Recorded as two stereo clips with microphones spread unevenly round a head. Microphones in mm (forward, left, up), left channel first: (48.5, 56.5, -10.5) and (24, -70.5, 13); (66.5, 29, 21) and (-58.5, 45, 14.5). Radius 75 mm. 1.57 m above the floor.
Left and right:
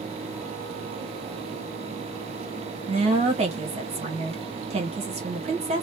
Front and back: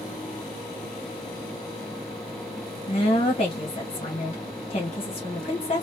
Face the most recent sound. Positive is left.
turn(degrees=-60)